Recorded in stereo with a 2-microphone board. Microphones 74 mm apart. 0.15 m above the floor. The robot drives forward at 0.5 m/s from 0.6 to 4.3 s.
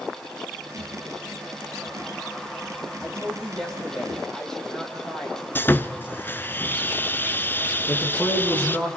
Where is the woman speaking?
5° left (ahead or behind), 7.5 m; by 5.5 s 10° left (ahead or behind), 7 m.